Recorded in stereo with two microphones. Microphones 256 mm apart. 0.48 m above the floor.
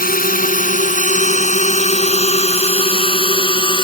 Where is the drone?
35° left (ahead or behind); by 3.8 s 20° left (ahead or behind).